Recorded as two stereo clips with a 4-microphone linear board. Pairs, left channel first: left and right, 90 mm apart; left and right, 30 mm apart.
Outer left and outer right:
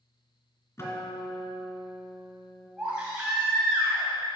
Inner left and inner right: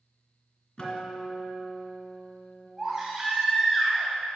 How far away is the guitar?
About 2 m.